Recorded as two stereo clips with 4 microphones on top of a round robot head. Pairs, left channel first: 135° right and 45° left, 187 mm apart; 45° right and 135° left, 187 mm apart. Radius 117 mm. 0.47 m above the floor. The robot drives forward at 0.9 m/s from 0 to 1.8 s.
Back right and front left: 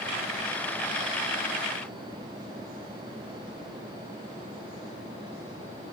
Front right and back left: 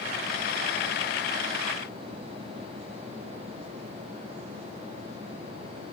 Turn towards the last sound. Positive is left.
No sound to turn to.